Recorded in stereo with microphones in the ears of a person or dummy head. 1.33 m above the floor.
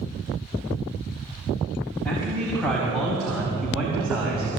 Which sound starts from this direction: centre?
A man speaking, at 2.0 s.